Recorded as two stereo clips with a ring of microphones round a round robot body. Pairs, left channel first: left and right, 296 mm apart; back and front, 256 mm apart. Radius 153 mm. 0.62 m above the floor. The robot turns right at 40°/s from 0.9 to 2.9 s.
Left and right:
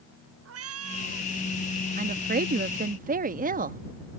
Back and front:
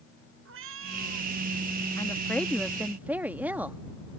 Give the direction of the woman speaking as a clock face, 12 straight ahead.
4 o'clock.